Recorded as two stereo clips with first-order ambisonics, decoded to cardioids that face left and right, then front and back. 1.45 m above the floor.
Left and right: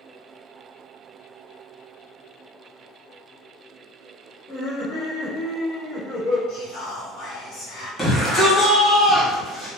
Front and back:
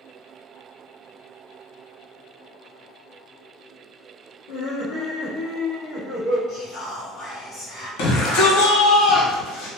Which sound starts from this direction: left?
Whispering, at 6.5 s.